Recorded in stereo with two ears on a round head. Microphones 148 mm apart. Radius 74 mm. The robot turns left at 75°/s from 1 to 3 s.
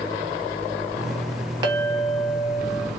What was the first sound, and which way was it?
A clink, 25° right.